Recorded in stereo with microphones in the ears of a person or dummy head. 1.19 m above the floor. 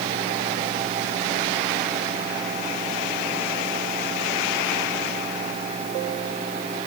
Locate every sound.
Only background noise.